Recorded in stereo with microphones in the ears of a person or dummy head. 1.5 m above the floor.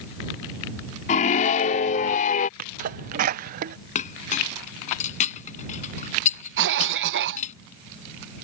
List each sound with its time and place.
1.1 s a scream: 50° left (ahead or behind); by 2.5 s 55° left (ahead or behind)
2.6 s a sneeze: 55° right (ahead or behind)
4.0 s a clink: 50° left (ahead or behind)
6.6 s a cough: 70° right (ahead or behind)